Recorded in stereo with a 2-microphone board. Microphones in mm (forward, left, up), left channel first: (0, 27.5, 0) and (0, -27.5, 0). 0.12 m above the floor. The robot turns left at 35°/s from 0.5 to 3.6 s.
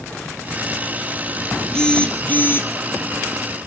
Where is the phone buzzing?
170° left, 3 m; by 2.7 s 135° left, 3 m.